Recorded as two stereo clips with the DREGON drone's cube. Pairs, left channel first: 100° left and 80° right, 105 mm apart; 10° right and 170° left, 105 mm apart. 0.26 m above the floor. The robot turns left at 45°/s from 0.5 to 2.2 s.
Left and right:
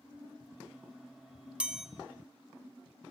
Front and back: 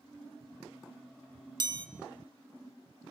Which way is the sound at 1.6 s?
155° right.